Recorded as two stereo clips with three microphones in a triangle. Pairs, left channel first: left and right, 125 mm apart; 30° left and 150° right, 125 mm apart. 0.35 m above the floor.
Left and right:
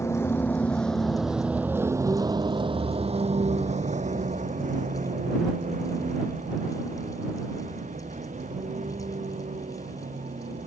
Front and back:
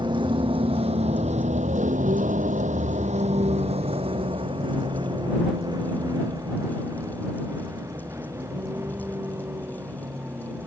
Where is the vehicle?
160° left; by 10.7 s 75° right.